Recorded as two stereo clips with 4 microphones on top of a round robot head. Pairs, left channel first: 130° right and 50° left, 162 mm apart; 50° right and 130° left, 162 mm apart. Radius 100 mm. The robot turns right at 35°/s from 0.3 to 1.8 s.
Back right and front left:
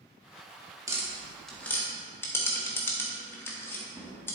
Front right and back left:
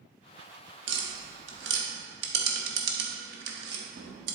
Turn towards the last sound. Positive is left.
turn(degrees=150)